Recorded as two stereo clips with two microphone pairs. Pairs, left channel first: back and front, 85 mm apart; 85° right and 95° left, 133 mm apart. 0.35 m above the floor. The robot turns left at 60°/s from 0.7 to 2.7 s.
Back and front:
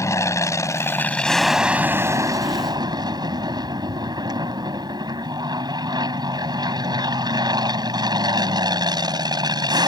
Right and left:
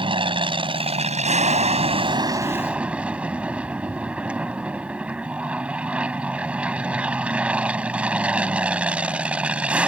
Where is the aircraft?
135° left; by 9.9 s 15° left.